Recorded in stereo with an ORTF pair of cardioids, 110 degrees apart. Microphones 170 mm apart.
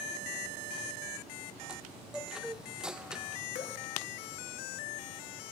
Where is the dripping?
45° left, 1.5 m.